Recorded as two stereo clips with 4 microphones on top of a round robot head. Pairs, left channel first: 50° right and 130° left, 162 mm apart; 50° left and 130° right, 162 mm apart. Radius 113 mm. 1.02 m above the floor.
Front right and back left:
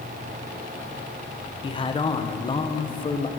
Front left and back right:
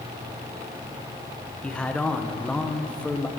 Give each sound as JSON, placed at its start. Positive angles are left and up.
{"t": 1.6, "sound": "a man speaking", "azimuth_deg": -30, "distance_m": 0.8}